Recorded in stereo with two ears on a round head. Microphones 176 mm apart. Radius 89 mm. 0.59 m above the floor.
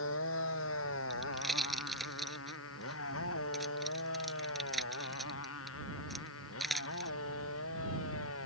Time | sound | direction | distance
0.0 | a motorcycle | 80° left | ?
1.1 | a pop | centre (ahead or behind) | ?